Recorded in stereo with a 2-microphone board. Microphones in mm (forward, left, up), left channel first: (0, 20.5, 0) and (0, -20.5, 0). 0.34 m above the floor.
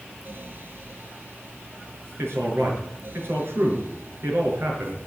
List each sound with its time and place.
2.2 s a man speaking: 75° right (ahead or behind), 5 m